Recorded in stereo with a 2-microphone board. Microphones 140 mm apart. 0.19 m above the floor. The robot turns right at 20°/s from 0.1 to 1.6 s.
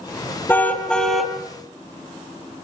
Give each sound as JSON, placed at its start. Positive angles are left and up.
{"t": 0.5, "sound": "a car horn", "side_deg": 15, "distance_m": 2.5}